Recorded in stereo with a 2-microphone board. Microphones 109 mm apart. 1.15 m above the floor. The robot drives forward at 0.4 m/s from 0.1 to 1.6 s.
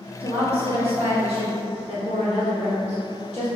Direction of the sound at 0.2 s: 60° right (ahead or behind).